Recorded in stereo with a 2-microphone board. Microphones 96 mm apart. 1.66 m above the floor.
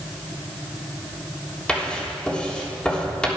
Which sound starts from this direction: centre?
Writing, at 1.7 s.